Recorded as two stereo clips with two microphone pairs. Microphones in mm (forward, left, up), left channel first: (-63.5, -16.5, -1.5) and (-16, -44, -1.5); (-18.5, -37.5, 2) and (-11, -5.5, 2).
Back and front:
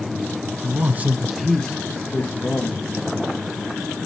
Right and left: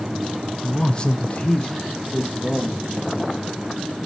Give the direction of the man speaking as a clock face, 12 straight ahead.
1 o'clock.